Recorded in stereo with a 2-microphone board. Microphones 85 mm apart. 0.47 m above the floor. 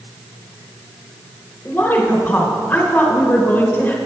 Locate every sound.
1.6 s a woman speaking: 25° left (ahead or behind), 1.4 m